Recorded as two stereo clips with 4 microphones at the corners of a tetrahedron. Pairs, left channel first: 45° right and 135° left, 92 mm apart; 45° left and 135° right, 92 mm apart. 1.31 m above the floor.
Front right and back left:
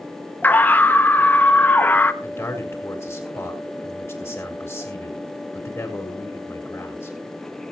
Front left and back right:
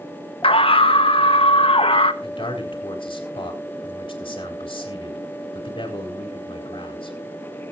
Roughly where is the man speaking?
Ahead.